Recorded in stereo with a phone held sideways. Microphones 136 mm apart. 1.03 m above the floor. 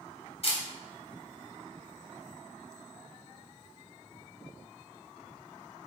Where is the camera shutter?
50° left (ahead or behind), 3 m.